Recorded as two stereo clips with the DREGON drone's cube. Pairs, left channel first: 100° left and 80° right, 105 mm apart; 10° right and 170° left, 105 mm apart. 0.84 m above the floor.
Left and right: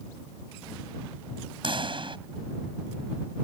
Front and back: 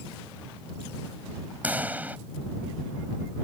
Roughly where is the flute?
I don't hear a flute.